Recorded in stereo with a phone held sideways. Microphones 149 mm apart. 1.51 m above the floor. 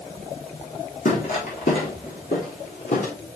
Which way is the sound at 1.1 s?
65° left (ahead or behind).